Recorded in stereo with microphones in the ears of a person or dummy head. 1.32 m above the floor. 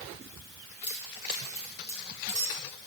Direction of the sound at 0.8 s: 50° left (ahead or behind).